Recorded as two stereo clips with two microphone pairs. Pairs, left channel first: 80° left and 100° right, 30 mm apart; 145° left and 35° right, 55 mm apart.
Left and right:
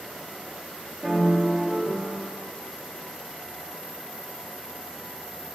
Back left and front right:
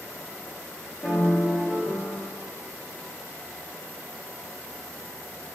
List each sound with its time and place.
1.0 s a piano: 125° right, 3 m